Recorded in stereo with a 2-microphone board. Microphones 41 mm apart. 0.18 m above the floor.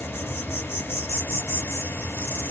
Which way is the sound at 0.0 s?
65° left (ahead or behind).